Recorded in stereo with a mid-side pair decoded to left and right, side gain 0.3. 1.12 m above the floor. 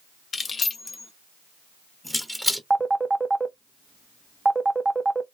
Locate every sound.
0.3 s keys jangling: 55° left, 1.0 m; by 2.6 s 10° right, 1.1 m
2.7 s a phone ringing: 25° right, 0.7 m